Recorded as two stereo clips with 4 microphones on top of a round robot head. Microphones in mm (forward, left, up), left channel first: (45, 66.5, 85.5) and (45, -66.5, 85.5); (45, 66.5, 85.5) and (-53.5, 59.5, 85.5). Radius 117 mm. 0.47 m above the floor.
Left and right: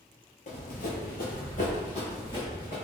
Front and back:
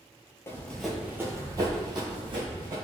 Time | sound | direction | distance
0.5 | running footsteps | 65° left | 0.8 m